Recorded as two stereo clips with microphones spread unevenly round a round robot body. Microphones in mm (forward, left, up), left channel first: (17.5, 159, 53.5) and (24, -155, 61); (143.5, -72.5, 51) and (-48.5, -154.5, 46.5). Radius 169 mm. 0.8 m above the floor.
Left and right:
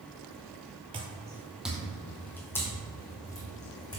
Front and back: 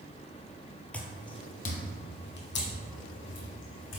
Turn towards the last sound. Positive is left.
turn(degrees=15)